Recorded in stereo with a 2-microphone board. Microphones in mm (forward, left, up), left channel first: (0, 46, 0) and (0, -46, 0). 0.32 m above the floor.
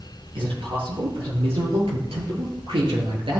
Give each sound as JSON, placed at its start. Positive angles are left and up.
{"t": 0.3, "sound": "a man speaking", "side_deg": -75, "distance_m": 6.5}